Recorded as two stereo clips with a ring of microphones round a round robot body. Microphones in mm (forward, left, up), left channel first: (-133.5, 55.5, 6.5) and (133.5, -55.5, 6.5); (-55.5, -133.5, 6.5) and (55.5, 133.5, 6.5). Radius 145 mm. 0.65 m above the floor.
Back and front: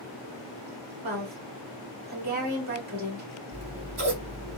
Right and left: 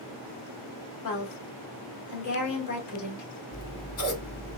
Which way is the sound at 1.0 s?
80° right.